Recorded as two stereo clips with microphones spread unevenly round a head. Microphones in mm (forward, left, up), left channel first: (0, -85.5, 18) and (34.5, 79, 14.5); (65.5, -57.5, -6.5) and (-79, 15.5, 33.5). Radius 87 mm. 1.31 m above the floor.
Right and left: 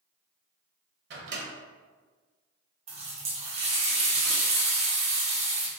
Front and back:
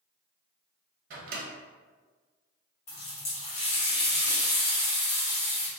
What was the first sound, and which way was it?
A microwave, 115° left.